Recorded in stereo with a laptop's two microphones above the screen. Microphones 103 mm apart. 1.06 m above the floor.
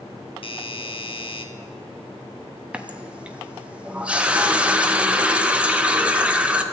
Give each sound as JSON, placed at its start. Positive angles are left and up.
{"t": 0.4, "sound": "a doorbell", "side_deg": 55, "distance_m": 1.1}
{"t": 2.7, "sound": "a running tap", "side_deg": -10, "distance_m": 0.7}